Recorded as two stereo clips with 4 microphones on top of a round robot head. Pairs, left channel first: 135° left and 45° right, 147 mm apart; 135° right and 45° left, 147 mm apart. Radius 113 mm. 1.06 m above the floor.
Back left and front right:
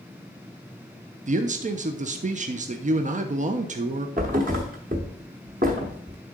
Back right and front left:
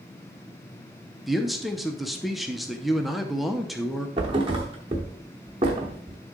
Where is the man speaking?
45° right, 0.7 m.